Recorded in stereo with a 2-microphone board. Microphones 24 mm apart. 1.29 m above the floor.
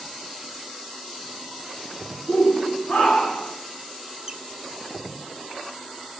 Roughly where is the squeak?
Right.